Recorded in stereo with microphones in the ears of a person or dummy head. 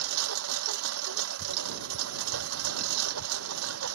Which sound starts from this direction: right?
A lawn mower, at 0.0 s.